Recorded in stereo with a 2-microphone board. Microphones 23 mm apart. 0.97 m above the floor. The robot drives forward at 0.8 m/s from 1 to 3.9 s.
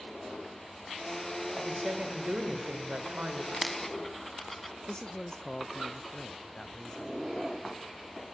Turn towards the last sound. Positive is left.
turn(degrees=20)  # may be behind; listen again after turning